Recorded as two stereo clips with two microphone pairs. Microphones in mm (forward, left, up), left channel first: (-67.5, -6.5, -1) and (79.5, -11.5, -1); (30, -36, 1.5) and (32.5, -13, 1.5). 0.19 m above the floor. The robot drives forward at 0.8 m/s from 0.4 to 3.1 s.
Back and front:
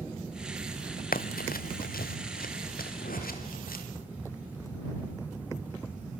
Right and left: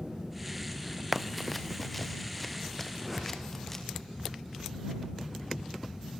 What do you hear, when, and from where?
1.1 s running footsteps: 165° left, 0.8 m; by 3.8 s 175° right, 4 m
3.0 s a whoosh: 170° left, 7.5 m